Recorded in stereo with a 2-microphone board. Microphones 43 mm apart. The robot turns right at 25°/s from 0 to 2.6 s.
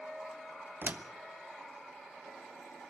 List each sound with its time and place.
0.8 s a door slam: 50° right (ahead or behind), 1.1 m; by 1.1 s 45° right (ahead or behind), 1.1 m